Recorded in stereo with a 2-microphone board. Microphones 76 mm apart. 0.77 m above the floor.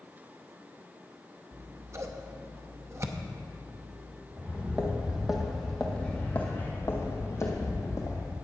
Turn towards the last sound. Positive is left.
turn(degrees=55)  # may be behind; listen again after turning